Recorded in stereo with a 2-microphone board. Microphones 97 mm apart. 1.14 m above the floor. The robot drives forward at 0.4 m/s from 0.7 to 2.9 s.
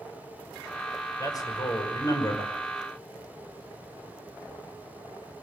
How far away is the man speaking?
About 6 m.